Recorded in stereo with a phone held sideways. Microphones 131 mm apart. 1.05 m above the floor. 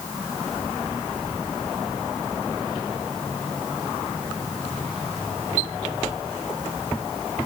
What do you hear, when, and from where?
Only background noise.